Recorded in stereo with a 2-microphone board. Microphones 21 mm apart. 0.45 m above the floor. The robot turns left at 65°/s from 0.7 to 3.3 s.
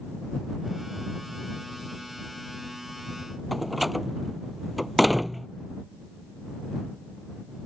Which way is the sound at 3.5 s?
Centre (ahead or behind).